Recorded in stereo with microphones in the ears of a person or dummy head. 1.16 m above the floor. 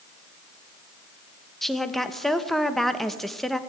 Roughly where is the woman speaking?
Centre.